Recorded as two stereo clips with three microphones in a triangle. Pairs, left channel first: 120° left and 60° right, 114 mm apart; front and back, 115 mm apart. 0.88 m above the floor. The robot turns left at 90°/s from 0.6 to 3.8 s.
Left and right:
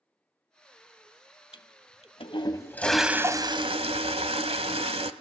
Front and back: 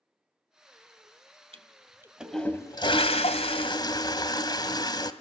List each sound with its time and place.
1.5 s a toilet flushing: 160° left, 1.5 m; by 5.1 s 45° right, 1.5 m